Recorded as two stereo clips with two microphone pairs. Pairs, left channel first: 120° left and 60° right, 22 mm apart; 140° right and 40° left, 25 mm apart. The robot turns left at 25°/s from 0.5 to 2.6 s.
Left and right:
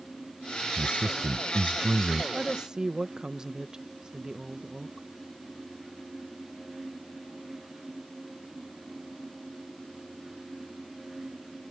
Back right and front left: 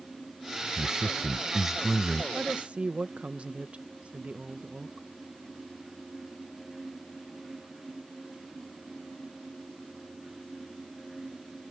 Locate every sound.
0.8 s a man speaking: 15° right; by 2.2 s 55° right
2.3 s a woman speaking: 10° left; by 5.1 s 5° left